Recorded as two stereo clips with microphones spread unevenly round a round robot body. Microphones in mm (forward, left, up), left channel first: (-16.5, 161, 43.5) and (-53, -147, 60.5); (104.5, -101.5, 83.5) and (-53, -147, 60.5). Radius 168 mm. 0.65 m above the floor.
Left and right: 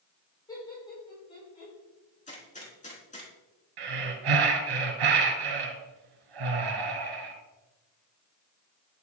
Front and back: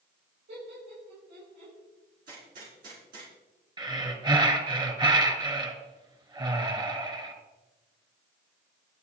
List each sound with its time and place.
0.5 s laughter: 160° left, 6 m; by 1.7 s 155° left, 6 m
2.3 s a gunshot: 150° left, 4.5 m
3.8 s breathing: 100° right, 2.5 m